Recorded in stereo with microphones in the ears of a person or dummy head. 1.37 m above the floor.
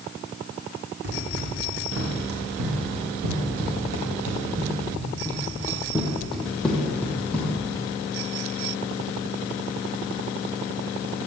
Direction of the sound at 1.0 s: 55° right (ahead or behind).